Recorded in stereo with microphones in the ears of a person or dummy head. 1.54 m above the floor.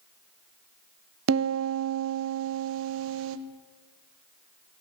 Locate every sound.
1.3 s a piano: 75° right (ahead or behind), 0.7 m